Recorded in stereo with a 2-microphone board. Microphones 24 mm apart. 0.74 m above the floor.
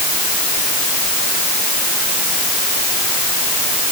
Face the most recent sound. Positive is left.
No sound to turn to.